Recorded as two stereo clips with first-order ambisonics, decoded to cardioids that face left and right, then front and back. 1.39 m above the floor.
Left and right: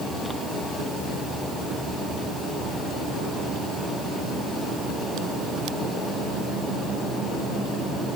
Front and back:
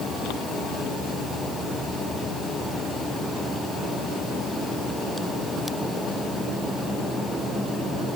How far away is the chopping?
I don't hear chopping.